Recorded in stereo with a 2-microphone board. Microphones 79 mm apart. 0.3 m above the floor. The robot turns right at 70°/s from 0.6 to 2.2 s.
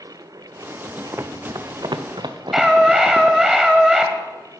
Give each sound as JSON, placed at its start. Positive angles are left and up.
{"t": 1.1, "sound": "running footsteps", "side_deg": -35, "distance_m": 0.7}
{"t": 2.5, "sound": "a scream", "side_deg": -5, "distance_m": 1.8}